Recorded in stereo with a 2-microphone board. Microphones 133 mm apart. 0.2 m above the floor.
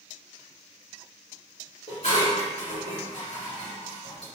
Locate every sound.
1.9 s dishes clattering: 55° left (ahead or behind), 1.5 m